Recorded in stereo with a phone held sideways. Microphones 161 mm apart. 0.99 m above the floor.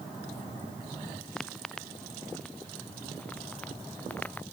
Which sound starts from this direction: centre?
Footsteps, at 1.4 s.